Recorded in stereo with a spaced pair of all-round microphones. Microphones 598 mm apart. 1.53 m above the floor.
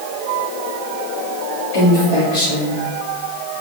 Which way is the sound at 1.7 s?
55° left (ahead or behind).